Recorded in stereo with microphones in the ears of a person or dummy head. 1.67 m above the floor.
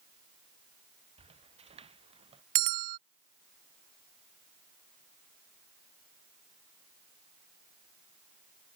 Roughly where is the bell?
Right.